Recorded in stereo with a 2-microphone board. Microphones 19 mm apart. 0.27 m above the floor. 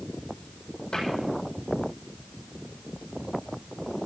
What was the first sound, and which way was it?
A cupboard door, 40° left (ahead or behind).